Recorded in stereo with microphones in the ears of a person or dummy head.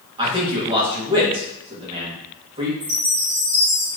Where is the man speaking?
20° right (ahead or behind), 1.1 m.